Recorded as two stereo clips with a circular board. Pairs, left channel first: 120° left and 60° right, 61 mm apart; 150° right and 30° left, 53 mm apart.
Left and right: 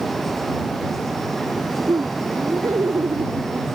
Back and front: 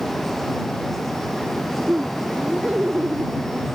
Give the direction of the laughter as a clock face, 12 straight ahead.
1 o'clock.